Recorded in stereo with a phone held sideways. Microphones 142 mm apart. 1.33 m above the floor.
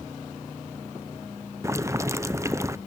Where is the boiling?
20° right (ahead or behind), 0.5 m.